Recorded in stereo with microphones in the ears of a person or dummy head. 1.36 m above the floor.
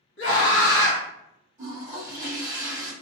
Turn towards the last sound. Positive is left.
turn(degrees=-20)  # may be behind; listen again after turning